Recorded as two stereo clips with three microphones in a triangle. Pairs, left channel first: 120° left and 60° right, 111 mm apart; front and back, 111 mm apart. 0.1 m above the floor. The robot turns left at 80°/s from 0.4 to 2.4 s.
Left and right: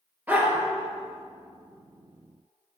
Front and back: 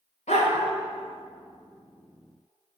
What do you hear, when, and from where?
0.3 s a dog barking: 15° left, 7 m; by 0.7 s 5° right, 7 m